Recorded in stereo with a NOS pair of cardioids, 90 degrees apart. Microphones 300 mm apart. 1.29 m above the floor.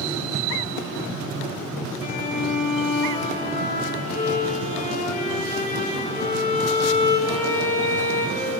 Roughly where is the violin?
Ahead left.